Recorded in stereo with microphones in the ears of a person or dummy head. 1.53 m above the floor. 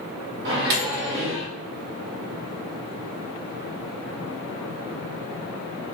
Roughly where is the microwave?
Right.